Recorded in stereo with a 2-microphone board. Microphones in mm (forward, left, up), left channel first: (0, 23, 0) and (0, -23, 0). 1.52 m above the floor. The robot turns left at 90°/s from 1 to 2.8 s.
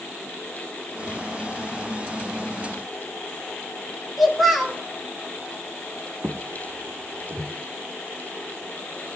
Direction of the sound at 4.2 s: 5° right (ahead or behind).